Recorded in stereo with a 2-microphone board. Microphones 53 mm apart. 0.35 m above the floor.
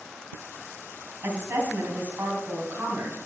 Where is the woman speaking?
45° right (ahead or behind), 2.5 m.